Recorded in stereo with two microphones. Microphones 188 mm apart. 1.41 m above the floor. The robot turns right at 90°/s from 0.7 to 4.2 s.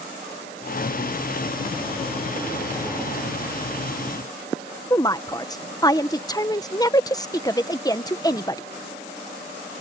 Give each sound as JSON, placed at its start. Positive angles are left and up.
{"t": 4.9, "sound": "a woman speaking", "side_deg": 20}